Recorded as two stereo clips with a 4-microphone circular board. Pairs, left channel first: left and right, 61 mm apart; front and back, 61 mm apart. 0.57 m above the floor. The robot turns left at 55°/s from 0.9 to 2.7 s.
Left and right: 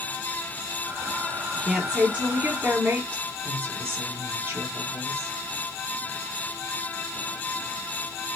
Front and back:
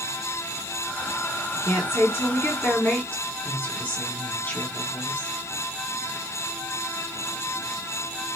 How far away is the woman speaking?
About 1.6 m.